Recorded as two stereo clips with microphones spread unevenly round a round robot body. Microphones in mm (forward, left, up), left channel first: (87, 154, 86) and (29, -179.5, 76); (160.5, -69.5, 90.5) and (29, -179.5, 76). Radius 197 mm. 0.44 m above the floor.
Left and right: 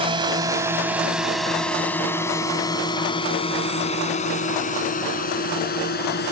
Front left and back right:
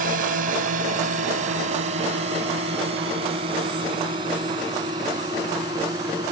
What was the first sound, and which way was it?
A drone, 175° right.